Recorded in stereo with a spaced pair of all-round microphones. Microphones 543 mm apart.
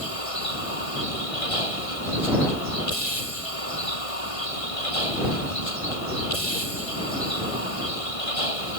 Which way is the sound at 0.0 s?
80° left.